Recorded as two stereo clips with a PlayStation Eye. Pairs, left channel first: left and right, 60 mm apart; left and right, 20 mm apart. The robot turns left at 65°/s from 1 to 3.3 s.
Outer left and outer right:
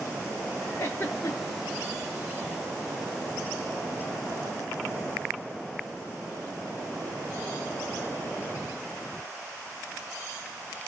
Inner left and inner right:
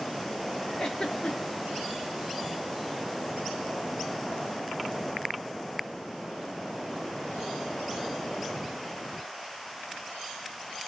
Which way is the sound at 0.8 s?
45° left (ahead or behind).